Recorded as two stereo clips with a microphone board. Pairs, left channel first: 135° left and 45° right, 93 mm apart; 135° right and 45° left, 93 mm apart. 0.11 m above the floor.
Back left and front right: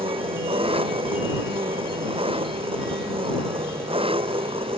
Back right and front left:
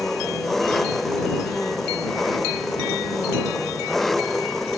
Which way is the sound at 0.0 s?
45° right.